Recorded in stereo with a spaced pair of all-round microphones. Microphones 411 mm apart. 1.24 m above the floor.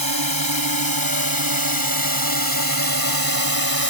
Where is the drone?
55° right (ahead or behind); by 3.9 s 60° right (ahead or behind).